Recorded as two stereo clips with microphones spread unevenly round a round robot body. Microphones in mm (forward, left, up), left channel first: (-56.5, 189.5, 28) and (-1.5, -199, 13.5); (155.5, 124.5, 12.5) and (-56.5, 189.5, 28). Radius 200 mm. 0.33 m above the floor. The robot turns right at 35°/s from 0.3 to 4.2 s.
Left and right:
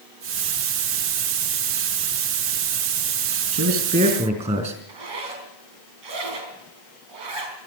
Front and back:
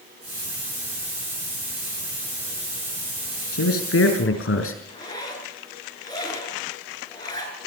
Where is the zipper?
85° right, 3.5 m.